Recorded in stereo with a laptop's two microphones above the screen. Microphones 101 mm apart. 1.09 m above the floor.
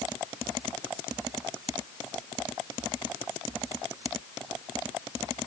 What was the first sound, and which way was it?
Only background noise.